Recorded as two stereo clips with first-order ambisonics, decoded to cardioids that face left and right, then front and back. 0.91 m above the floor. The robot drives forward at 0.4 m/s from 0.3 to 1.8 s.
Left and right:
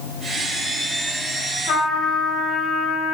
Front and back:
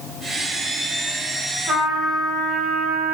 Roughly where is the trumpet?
Behind left.